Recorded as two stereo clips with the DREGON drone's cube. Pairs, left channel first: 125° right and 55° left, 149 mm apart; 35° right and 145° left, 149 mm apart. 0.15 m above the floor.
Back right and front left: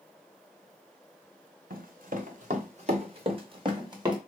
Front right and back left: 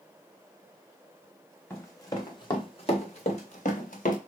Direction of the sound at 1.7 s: 40° left.